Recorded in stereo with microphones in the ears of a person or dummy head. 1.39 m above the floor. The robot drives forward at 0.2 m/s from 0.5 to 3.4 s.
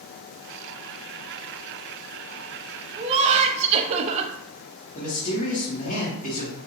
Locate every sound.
3.0 s laughter: 30° right (ahead or behind), 0.6 m; by 4.3 s 35° right (ahead or behind), 0.5 m
5.0 s a man speaking: 40° left (ahead or behind), 1.1 m